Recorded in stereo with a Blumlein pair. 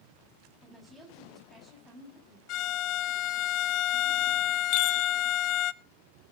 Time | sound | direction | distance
0.6 | a woman speaking | straight ahead | 8 m
2.5 | a violin | 40° left | 0.6 m
4.7 | a chime | 45° left | 0.8 m